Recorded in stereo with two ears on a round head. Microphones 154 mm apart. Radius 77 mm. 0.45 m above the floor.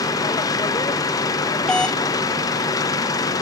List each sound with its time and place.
0.0 s an engine running: 20° left (ahead or behind)
1.7 s a doorbell: 5° left (ahead or behind)